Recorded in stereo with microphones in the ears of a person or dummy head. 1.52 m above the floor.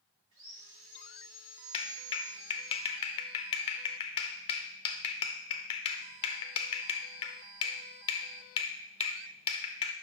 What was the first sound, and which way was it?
Sawing, 35° right (ahead or behind).